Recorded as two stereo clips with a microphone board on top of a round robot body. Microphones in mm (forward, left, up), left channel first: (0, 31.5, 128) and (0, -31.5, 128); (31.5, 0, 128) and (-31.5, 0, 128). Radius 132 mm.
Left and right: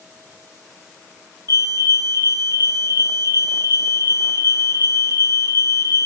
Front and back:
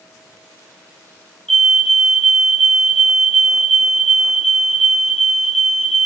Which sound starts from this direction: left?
A fire alarm, at 1.5 s.